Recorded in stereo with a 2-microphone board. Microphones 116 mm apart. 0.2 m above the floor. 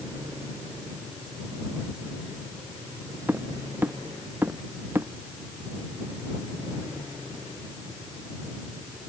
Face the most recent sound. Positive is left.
turn(degrees=-20)  # may be behind; listen again after turning